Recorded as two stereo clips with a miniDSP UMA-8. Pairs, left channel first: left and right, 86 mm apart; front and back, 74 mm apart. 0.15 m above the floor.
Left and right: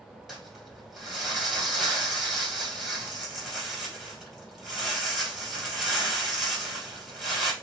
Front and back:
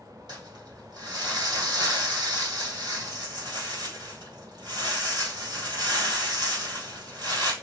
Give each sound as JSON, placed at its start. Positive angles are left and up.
{"t": 0.3, "sound": "crumpling", "azimuth_deg": 180, "distance_m": 2.5}